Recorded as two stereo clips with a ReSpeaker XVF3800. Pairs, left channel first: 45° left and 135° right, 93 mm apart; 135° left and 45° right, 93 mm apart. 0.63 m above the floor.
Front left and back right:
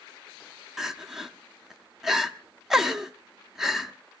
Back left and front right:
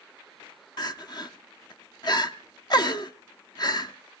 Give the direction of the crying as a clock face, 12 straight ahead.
7 o'clock.